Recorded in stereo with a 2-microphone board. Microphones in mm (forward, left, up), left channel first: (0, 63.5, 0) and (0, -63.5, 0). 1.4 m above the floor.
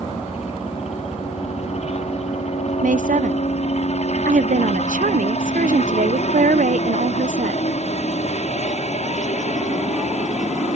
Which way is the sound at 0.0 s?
55° left (ahead or behind).